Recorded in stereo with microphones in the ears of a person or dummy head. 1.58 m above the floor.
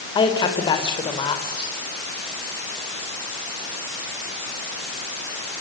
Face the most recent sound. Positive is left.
turn(degrees=25)  # may be behind; listen again after turning